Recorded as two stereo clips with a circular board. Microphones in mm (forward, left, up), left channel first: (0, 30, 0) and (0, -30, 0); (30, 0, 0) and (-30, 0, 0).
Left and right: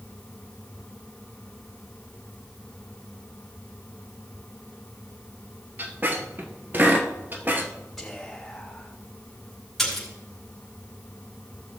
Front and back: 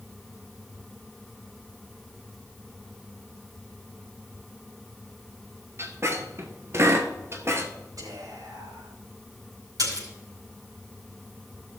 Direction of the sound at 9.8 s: Straight behind.